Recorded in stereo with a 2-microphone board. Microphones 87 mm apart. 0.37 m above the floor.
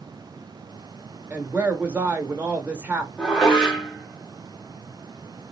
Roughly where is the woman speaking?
Centre.